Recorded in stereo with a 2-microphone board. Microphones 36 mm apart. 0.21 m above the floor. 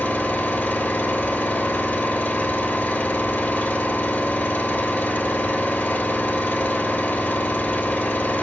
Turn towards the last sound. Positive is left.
turn(degrees=65)  # may be behind; listen again after turning